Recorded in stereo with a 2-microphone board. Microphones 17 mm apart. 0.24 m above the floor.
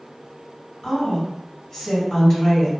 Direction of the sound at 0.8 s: 45° left (ahead or behind).